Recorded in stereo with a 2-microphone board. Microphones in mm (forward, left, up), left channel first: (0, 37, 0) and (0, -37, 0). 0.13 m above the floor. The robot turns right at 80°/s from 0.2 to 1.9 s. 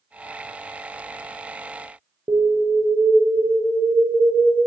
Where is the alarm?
55° right (ahead or behind), 2.5 m.